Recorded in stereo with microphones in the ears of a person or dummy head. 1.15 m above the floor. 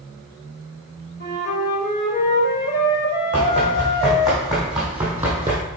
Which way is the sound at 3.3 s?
5° left (ahead or behind).